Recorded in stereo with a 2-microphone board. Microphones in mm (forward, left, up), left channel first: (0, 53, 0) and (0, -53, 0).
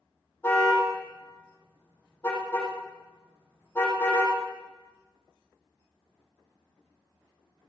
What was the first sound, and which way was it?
A car horn, 25° left (ahead or behind).